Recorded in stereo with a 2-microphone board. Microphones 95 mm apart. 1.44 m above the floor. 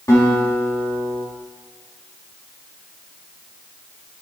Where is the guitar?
35° left (ahead or behind), 3 m.